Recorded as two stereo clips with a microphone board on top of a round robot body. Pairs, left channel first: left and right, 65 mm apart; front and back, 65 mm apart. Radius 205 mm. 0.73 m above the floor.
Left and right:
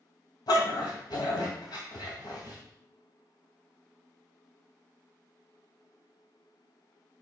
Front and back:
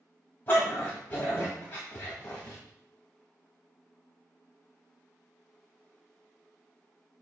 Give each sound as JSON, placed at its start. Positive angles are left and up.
{"t": 0.5, "sound": "a dog barking", "azimuth_deg": 65, "distance_m": 2.0}